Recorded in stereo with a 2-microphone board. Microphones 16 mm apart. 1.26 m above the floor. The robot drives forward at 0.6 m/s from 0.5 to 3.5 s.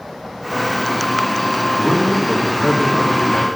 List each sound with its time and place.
1.8 s a man speaking: 60° left (ahead or behind), 2.5 m; by 3.5 s 85° left, 2 m